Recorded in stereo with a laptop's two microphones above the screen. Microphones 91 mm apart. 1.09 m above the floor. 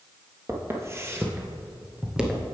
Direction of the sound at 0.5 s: 30° right (ahead or behind).